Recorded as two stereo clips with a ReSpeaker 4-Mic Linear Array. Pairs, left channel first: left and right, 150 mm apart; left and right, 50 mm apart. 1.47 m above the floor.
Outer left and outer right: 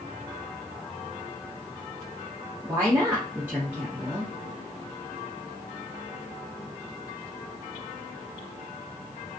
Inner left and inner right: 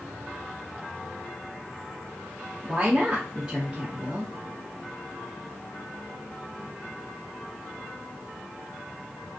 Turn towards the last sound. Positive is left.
turn(degrees=-15)  # may be behind; listen again after turning